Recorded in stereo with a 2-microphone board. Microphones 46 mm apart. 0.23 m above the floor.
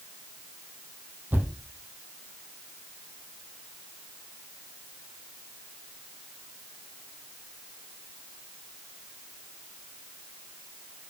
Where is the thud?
40° right (ahead or behind), 3 m.